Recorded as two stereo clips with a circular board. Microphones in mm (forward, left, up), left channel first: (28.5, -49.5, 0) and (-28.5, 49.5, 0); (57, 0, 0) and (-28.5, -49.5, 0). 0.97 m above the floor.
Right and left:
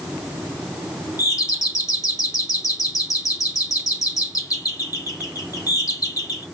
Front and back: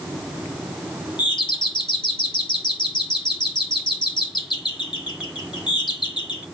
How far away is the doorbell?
About 1.6 m.